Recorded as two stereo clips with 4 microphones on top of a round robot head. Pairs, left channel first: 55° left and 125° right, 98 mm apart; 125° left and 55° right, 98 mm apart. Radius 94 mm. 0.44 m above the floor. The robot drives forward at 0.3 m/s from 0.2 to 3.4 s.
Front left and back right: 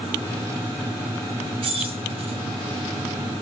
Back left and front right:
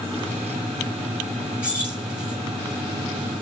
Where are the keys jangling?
130° right, 2 m; by 2.4 s 135° right, 2 m.